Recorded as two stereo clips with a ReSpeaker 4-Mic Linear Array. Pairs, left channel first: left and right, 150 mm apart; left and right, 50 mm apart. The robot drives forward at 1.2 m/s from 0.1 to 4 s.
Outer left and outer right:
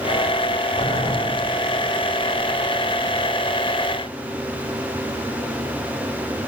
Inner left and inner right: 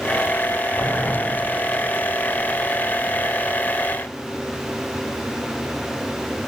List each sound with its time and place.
0.8 s boiling: 45° left (ahead or behind), 9 m; by 1.2 s 50° left (ahead or behind), 8.5 m